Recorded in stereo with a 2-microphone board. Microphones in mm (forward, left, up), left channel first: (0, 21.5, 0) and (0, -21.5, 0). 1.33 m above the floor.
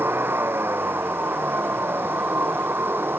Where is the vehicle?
60° right (ahead or behind).